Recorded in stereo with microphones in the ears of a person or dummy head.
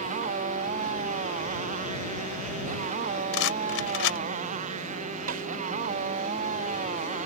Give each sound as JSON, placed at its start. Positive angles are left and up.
{"t": 0.0, "sound": "a motorcycle", "side_deg": -45}
{"t": 3.3, "sound": "a rattle", "side_deg": 70}
{"t": 5.3, "sound": "a snare drum", "side_deg": -50}